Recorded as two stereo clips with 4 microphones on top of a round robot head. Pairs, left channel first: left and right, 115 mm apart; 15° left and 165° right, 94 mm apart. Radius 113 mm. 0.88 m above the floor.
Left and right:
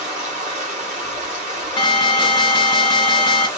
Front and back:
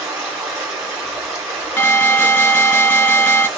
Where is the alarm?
70° left, 1.7 m.